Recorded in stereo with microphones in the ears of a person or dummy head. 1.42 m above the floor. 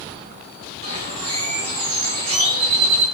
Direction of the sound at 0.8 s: 50° right (ahead or behind).